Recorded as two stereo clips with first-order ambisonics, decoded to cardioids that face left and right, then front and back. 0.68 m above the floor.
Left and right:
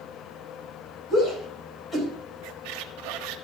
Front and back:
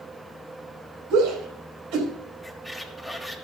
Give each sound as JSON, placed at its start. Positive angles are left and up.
{"t": 1.1, "sound": "a shout", "azimuth_deg": 160, "distance_m": 4.5}
{"t": 2.4, "sound": "a squeak", "azimuth_deg": -90, "distance_m": 1.0}